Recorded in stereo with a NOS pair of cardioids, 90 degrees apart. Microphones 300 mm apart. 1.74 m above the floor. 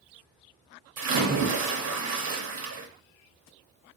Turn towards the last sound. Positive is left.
turn(degrees=-65)